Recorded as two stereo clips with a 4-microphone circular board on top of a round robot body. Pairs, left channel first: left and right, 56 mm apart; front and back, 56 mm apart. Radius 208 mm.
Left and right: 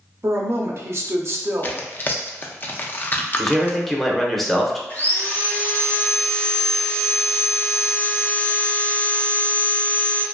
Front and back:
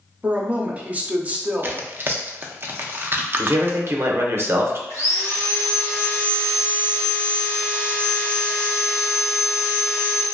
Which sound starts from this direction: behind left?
Tearing paper, at 1.6 s.